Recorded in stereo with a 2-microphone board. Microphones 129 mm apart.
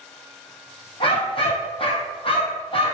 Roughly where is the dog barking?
Left.